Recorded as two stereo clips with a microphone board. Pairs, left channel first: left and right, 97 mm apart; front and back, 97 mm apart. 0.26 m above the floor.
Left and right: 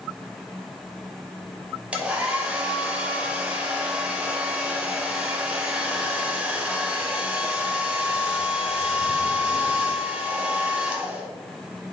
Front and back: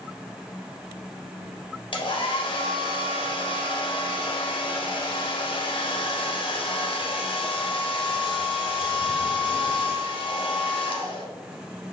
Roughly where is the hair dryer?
Ahead.